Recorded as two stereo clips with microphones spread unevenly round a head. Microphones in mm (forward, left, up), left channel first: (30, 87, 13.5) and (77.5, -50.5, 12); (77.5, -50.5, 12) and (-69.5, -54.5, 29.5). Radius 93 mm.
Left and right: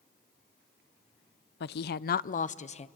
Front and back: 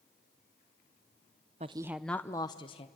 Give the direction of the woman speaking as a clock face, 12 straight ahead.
8 o'clock.